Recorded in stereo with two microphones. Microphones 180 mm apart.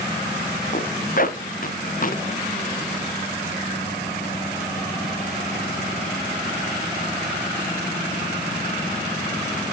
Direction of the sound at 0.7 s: 50° left (ahead or behind).